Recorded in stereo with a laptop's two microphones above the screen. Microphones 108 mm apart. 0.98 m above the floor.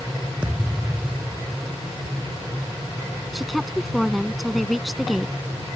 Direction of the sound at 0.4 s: 10° right (ahead or behind).